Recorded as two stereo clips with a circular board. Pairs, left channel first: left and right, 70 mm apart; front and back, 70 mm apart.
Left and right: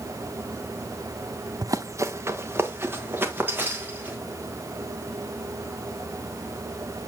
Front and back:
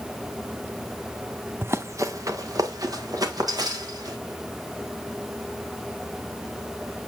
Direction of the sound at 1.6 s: 120° right.